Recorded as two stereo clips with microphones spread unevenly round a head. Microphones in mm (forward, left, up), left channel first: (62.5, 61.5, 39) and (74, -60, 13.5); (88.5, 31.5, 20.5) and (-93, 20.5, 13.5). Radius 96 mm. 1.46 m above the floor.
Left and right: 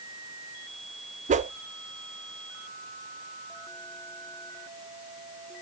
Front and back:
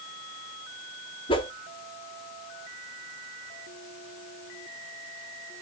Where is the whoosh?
65° right, 1.3 m.